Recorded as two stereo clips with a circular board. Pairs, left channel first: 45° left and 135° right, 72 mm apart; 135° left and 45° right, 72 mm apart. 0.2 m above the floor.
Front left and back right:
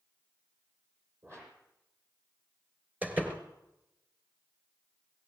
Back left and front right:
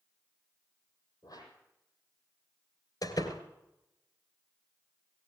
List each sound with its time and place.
1.2 s a whoosh: 170° left, 6.5 m
3.0 s a door slam: 160° left, 3 m